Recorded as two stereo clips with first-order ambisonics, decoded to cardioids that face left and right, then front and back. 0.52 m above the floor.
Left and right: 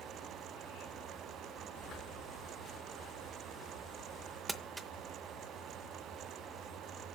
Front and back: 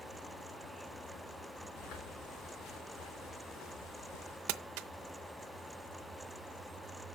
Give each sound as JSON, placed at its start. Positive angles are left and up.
{"t": 1.8, "sound": "footsteps", "azimuth_deg": 25, "distance_m": 6.0}
{"t": 4.5, "sound": "crumpling", "azimuth_deg": -170, "distance_m": 0.6}